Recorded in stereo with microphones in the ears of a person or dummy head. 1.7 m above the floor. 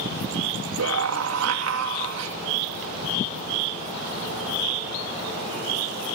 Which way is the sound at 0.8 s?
85° right.